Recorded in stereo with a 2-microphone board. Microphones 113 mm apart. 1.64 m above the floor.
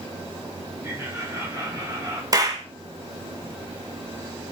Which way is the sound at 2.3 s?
35° right (ahead or behind).